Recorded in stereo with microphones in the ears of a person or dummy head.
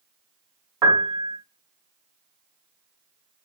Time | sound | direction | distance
0.8 | a piano | 15° right (ahead or behind) | 0.7 m